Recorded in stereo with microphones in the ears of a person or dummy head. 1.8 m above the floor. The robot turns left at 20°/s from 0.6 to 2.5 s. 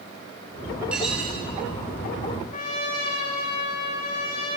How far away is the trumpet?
About 4.5 m.